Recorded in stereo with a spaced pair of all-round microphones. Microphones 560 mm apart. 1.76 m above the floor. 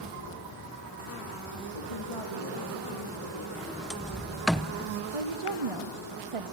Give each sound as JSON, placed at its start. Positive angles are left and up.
{"t": 1.7, "sound": "a woman speaking", "side_deg": 70, "distance_m": 2.5}
{"t": 3.5, "sound": "a sliding door", "side_deg": 0, "distance_m": 0.7}
{"t": 5.1, "sound": "a woman speaking", "side_deg": -70, "distance_m": 0.8}